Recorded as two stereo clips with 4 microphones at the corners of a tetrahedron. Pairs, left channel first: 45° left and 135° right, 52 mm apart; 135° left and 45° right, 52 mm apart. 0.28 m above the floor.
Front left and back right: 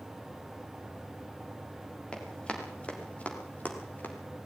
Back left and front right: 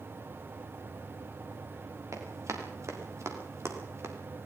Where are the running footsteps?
25° right, 6.5 m; by 4.2 s 10° right, 5 m.